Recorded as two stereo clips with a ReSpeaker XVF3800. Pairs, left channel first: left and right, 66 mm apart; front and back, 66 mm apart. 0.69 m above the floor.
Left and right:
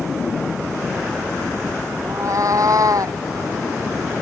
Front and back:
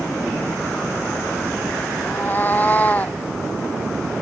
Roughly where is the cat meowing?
Ahead right.